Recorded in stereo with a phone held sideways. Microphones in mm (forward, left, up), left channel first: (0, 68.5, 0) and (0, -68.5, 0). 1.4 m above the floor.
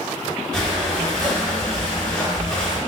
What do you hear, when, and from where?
0.5 s breathing: 5° left (ahead or behind), 1.2 m